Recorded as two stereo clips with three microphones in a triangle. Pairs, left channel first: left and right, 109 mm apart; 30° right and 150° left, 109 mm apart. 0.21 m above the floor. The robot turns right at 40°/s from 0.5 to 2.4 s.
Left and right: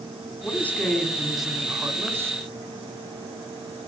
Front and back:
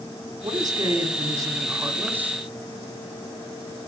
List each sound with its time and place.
0.4 s a man speaking: 150° left, 1.6 m; by 2.4 s 135° right, 1.6 m